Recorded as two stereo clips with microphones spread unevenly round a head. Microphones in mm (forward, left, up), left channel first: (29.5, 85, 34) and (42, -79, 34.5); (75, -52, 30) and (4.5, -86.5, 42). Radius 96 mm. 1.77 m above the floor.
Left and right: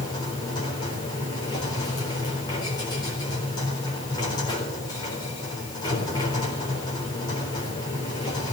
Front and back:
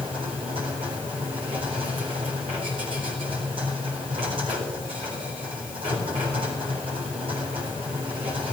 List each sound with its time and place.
0.0 s a machine running: 165° left, 4 m